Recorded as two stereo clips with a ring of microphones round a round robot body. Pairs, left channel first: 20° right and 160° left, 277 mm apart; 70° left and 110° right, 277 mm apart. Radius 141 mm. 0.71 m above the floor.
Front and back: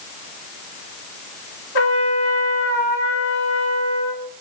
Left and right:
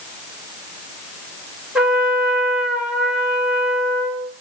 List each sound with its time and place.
1.8 s a trumpet: 25° right, 2.0 m